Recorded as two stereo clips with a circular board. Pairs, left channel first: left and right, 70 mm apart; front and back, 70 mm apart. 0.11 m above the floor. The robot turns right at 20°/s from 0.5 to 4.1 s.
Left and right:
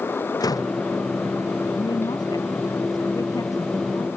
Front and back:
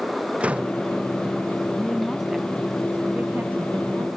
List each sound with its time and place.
0.4 s a door slam: 110° left; by 0.8 s 115° left
1.8 s a woman speaking: 85° left; by 4.1 s 130° left